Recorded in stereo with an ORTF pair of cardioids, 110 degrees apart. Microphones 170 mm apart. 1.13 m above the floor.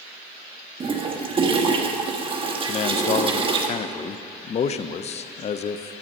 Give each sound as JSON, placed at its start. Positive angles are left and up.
{"t": 0.8, "sound": "a toilet flushing", "azimuth_deg": -30, "distance_m": 1.4}
{"t": 2.7, "sound": "a man speaking", "azimuth_deg": 40, "distance_m": 0.6}